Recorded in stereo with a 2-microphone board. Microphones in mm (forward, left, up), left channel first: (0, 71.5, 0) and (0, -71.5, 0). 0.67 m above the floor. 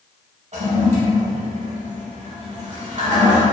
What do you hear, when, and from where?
0.5 s a toilet flushing: 55° right (ahead or behind), 0.7 m